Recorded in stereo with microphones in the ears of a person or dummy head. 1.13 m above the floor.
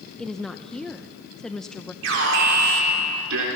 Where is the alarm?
70° right (ahead or behind), 3.5 m.